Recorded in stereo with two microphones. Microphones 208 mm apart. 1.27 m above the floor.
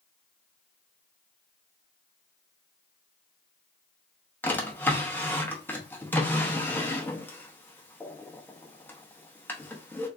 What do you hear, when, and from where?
4.4 s a drawer: 10° left (ahead or behind), 0.7 m